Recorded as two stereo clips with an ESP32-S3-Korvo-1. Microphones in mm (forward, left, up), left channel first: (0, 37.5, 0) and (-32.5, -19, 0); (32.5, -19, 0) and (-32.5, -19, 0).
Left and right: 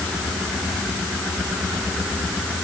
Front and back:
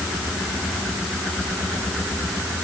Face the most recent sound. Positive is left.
No sound to turn to.